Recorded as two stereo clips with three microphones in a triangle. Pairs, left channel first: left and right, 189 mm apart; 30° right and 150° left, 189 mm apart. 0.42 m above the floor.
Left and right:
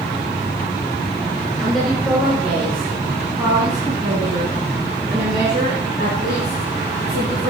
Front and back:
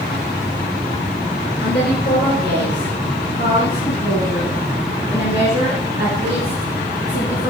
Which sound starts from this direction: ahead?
A woman speaking, at 1.6 s.